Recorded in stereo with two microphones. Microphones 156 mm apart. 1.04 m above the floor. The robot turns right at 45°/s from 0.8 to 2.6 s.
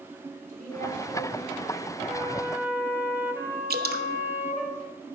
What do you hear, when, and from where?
0.5 s a woman speaking: 125° right, 5.5 m; by 2.0 s 75° right, 5.5 m
2.1 s a flute: 35° right (ahead or behind), 1.7 m; by 4.7 s 10° right (ahead or behind), 1.7 m
3.7 s dripping: 85° right, 0.9 m